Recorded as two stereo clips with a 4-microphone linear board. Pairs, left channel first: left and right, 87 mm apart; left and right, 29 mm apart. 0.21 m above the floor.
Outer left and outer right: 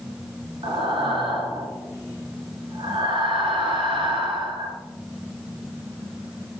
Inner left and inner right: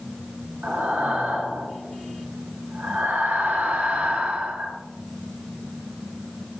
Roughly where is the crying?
No crying in this recording.